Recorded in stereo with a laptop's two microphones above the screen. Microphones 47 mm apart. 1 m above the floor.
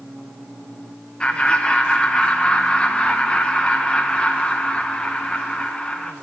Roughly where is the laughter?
Left.